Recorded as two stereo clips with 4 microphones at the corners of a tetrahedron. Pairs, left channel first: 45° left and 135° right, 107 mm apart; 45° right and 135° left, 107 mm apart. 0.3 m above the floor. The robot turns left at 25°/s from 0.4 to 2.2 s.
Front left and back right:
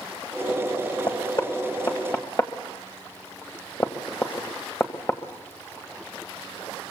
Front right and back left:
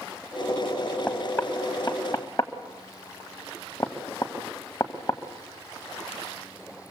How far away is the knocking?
About 1.6 m.